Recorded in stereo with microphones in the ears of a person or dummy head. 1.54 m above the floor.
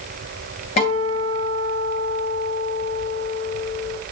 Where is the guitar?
40° left (ahead or behind), 3 m.